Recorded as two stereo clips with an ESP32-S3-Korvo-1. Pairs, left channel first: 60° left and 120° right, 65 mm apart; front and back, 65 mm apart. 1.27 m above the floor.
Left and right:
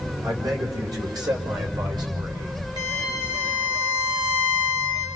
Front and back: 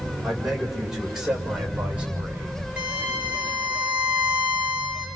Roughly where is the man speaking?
Right.